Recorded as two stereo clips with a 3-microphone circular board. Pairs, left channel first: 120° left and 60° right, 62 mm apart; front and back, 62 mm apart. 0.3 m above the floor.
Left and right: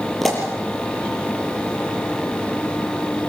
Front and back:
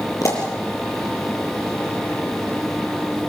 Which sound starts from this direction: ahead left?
A pop, at 0.2 s.